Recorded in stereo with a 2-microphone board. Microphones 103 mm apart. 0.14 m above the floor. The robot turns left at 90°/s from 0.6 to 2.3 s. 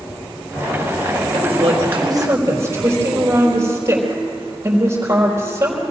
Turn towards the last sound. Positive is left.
turn(degrees=-150)